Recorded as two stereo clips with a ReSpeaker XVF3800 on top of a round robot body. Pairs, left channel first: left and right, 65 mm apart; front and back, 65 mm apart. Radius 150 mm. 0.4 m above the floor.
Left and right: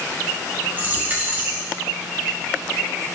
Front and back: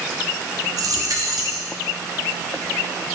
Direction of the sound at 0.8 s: 155° right.